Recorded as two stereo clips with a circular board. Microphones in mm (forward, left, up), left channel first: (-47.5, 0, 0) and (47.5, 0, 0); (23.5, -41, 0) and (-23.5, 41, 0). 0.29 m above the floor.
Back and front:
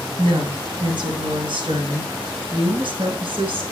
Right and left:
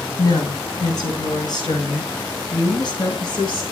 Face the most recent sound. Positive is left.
turn(degrees=-25)